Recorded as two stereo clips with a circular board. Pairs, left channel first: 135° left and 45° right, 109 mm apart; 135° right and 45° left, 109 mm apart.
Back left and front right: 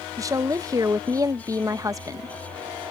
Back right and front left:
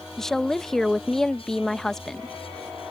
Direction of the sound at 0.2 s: 55° right.